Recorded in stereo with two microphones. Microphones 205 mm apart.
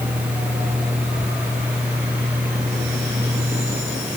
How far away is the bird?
No bird in this recording.